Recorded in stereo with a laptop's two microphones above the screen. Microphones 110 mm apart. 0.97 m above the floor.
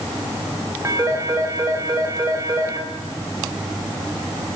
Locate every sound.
0.8 s a phone ringing: 30° right (ahead or behind), 3.5 m